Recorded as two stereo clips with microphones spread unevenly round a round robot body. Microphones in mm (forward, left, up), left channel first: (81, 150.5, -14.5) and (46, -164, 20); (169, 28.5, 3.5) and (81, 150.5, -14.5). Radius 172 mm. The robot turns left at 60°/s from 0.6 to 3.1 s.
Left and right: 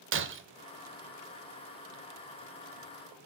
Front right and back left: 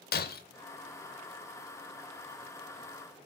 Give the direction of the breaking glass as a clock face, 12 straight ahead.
1 o'clock.